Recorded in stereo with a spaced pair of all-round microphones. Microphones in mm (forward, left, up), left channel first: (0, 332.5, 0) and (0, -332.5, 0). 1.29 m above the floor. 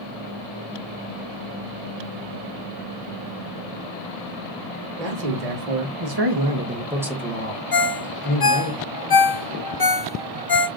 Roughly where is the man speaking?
Right.